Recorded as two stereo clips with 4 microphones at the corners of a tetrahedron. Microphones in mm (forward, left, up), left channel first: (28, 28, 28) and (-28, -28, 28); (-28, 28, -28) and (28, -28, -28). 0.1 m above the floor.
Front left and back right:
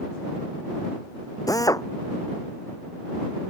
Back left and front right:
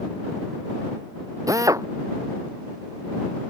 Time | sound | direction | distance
1.5 | a drill | straight ahead | ?